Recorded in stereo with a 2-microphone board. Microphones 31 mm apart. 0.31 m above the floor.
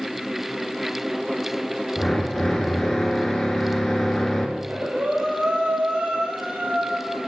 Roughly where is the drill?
Centre.